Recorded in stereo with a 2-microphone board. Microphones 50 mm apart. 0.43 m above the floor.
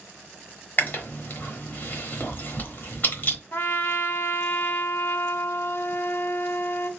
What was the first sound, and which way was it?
Chewing, 40° left (ahead or behind).